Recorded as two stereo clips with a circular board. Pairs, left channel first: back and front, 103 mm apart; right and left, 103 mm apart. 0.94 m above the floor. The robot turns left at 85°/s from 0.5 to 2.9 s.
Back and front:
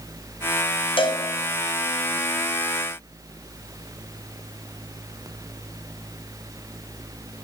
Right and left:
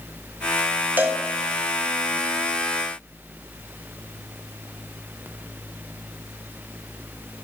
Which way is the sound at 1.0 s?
160° left.